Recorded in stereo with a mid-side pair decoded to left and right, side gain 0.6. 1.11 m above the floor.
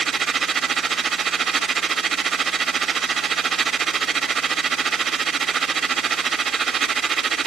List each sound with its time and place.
0.0 s a machine running: 40° right, 2.0 m